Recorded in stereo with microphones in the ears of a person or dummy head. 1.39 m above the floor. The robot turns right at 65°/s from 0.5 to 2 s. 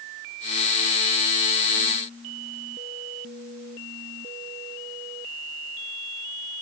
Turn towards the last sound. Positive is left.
No sound to turn to.